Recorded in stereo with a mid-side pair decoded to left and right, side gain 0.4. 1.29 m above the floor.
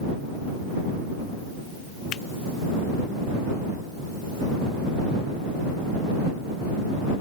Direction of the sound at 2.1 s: 70° left.